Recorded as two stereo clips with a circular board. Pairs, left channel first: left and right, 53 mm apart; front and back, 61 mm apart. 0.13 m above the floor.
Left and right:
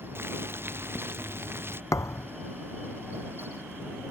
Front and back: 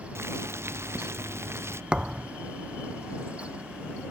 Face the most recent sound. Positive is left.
turn(degrees=105)